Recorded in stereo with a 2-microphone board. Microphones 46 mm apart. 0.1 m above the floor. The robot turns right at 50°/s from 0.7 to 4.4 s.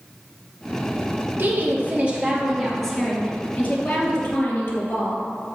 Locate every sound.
1.4 s a woman speaking: 65° right, 3 m; by 5.2 s 90° left, 3 m